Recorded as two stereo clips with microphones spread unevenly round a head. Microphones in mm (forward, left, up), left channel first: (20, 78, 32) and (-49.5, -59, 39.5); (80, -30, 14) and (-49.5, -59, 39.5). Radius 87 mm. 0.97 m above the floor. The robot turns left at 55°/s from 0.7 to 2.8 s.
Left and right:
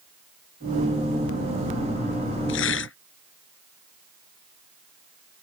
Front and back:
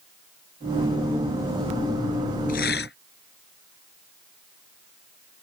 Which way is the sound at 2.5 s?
65° left.